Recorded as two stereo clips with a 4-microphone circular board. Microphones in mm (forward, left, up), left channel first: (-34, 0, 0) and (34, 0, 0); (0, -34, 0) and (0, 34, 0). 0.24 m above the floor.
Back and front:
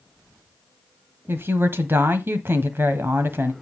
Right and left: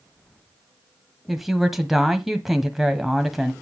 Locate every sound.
1.3 s a woman speaking: 5° left, 1.3 m